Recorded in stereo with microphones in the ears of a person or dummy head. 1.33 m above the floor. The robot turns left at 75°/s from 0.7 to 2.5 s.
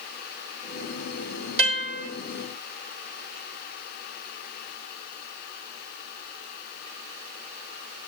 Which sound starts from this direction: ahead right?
A guitar, at 1.6 s.